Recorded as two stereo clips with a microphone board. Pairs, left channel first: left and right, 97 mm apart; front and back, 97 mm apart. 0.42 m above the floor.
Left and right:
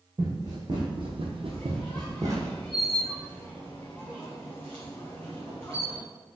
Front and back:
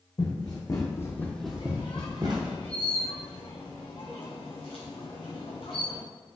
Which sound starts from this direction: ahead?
A squeak, at 1.5 s.